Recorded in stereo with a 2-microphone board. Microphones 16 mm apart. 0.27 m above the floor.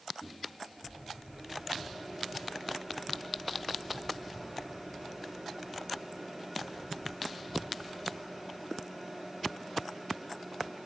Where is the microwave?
20° left (ahead or behind), 5.5 m.